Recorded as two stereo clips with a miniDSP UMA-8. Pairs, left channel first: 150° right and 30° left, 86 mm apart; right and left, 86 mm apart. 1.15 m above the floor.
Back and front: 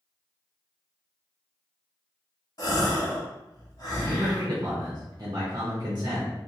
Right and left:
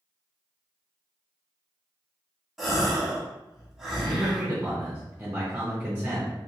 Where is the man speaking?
30° left, 0.7 m.